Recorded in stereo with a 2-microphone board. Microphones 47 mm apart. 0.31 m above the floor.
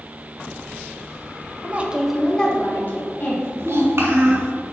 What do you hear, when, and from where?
1.6 s a woman speaking: 40° right (ahead or behind), 1.1 m; by 3.5 s 50° left (ahead or behind), 2 m
3.6 s a child speaking: 70° right (ahead or behind), 2 m